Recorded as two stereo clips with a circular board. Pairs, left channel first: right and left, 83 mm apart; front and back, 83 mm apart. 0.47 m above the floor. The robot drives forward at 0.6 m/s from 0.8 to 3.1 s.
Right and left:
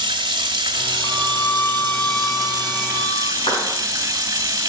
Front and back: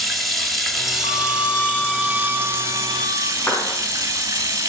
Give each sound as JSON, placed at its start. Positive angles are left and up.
{"t": 0.0, "sound": "running water", "azimuth_deg": 95, "distance_m": 1.6}
{"t": 1.0, "sound": "a violin", "azimuth_deg": -25, "distance_m": 0.7}
{"t": 3.4, "sound": "a clap", "azimuth_deg": -75, "distance_m": 4.5}